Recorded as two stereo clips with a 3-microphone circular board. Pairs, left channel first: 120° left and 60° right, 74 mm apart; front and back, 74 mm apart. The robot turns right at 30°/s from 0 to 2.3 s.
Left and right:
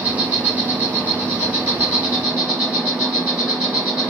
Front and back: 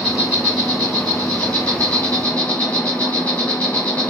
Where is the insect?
80° right, 1.8 m; by 4.1 s 10° right, 1.8 m.